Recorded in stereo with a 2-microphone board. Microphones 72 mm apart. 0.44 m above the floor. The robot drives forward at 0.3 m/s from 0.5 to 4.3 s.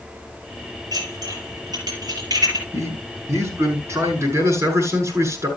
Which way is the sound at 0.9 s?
70° right (ahead or behind).